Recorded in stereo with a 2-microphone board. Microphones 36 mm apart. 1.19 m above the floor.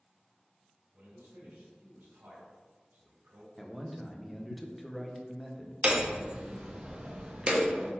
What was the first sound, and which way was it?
A man speaking, 70° right (ahead or behind).